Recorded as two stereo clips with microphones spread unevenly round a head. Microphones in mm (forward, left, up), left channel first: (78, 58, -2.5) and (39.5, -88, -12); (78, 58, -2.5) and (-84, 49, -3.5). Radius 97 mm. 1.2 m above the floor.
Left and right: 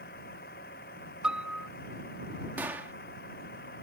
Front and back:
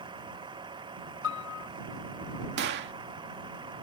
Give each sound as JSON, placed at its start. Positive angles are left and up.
{"t": 0.0, "sound": "a vehicle", "azimuth_deg": 120}
{"t": 1.2, "sound": "a piano", "azimuth_deg": -20}
{"t": 2.6, "sound": "a gunshot", "azimuth_deg": 175}